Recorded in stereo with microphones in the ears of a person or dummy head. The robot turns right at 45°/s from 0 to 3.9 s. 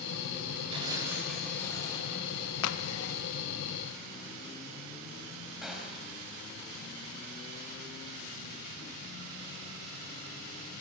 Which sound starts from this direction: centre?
A gunshot, at 5.6 s.